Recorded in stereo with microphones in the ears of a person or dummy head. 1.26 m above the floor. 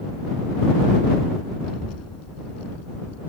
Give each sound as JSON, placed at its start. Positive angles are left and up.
{"t": 1.6, "sound": "a child speaking", "side_deg": 85}